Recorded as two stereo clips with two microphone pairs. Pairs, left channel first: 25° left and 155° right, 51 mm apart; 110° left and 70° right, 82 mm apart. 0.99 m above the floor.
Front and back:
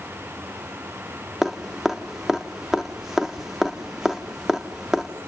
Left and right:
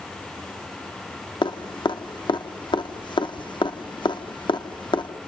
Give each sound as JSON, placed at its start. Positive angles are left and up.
{"t": 1.4, "sound": "dripping", "azimuth_deg": 125, "distance_m": 0.9}